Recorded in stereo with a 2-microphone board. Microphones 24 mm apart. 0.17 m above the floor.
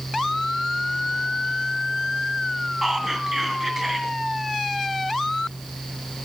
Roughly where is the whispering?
Centre.